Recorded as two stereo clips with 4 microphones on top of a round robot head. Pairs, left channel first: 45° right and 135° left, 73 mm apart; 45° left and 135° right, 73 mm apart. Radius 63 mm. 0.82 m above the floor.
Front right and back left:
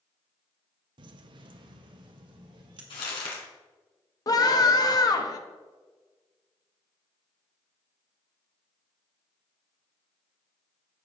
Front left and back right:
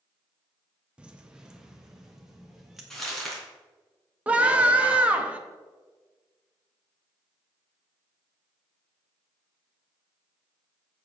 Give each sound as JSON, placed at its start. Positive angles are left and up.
{"t": 1.0, "sound": "keys jangling", "azimuth_deg": 150, "distance_m": 0.6}
{"t": 2.9, "sound": "crumpling", "azimuth_deg": -35, "distance_m": 3.0}
{"t": 4.3, "sound": "a scream", "azimuth_deg": -65, "distance_m": 1.3}